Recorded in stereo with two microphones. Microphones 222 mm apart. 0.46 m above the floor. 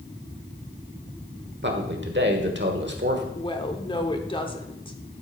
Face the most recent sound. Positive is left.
turn(degrees=20)  # may be behind; listen again after turning